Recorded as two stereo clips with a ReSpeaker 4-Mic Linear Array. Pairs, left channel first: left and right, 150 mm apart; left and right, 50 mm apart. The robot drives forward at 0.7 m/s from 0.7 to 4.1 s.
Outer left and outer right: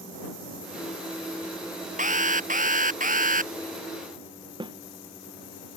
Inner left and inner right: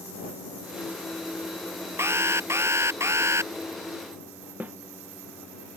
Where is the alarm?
55° right (ahead or behind); by 3.5 s 60° right (ahead or behind).